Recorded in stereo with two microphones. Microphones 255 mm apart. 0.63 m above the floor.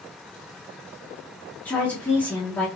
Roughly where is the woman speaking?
Centre.